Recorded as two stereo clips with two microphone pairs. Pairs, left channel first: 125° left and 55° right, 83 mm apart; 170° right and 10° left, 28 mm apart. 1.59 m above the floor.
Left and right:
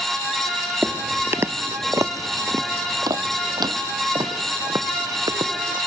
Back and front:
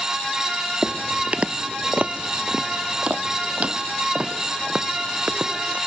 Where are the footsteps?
5° left; by 5.8 s 35° right.